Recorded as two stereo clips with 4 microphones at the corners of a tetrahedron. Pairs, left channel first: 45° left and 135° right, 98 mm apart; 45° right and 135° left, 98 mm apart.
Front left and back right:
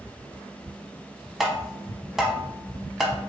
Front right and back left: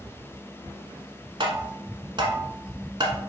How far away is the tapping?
About 0.8 m.